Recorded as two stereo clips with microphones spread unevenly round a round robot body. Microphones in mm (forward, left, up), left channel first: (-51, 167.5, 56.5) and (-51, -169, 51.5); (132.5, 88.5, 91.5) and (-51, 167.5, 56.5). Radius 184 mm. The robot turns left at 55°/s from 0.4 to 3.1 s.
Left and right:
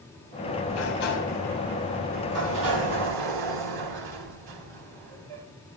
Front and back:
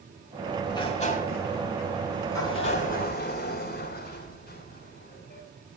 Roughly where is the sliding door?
Ahead left.